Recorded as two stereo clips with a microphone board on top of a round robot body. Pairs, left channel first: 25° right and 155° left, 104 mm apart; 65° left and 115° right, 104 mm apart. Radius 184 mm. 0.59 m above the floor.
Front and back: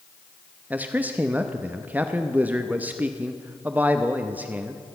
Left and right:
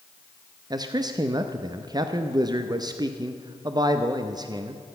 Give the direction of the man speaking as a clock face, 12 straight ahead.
5 o'clock.